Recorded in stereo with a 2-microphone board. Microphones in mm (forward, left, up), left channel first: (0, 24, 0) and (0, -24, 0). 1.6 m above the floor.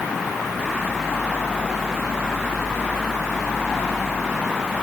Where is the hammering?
No hammering in this recording.